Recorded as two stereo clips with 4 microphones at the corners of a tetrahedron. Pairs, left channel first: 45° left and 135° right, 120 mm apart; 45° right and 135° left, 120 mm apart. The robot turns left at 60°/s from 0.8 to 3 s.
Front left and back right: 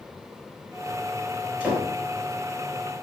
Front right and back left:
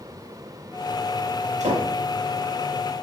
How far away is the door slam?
About 6 m.